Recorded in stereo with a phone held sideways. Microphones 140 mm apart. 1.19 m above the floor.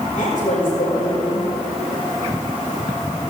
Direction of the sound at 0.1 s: 75° left (ahead or behind).